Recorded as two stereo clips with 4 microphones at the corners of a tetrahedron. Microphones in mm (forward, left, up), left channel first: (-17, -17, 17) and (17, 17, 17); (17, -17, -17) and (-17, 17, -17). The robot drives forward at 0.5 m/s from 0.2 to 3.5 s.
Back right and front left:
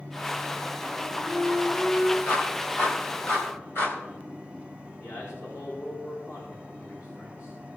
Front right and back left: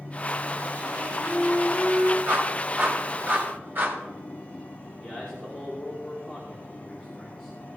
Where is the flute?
170° left, 4 m.